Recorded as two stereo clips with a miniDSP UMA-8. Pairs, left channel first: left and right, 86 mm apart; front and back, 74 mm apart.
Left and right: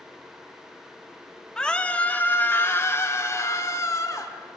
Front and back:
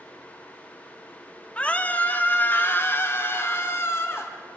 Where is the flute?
I don't hear a flute.